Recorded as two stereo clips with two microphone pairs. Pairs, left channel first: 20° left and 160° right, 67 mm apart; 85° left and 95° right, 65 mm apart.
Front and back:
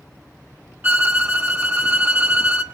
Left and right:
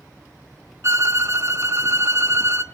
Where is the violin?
115° right, 1.6 m.